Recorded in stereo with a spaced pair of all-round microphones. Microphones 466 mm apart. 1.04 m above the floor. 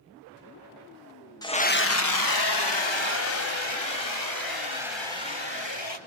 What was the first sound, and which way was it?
A scream, 10° left (ahead or behind).